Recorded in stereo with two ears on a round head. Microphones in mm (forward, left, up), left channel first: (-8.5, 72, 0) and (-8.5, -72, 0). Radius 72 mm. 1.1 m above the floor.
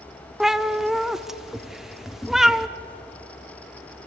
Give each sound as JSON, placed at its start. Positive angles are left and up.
{"t": 0.4, "sound": "a cat meowing", "side_deg": 0, "distance_m": 0.7}